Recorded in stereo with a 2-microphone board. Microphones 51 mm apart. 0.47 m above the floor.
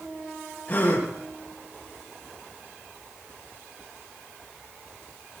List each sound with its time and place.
0.7 s a gasp: 30° left (ahead or behind), 7.5 m